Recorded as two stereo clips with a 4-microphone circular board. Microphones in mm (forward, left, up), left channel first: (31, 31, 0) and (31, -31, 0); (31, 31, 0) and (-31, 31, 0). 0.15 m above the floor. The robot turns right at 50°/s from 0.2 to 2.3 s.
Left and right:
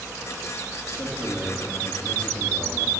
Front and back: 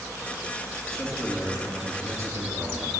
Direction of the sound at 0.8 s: 80° left.